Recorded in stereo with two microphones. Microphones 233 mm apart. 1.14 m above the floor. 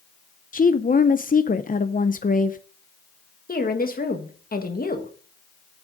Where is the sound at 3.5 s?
40° left (ahead or behind), 1.6 m.